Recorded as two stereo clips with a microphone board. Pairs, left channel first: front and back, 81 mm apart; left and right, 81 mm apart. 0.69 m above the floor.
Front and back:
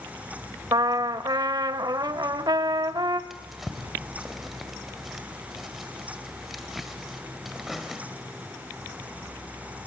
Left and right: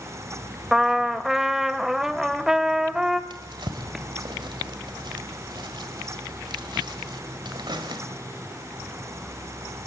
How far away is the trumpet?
About 0.7 m.